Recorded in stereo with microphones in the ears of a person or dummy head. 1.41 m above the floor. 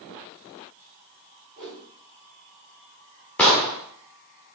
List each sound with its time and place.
1.6 s a whoosh: 5° left (ahead or behind), 4 m
3.4 s an explosion: 10° left (ahead or behind), 1.9 m